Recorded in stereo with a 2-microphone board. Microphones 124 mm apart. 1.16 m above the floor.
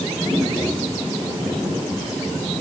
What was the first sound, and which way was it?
Only background noise.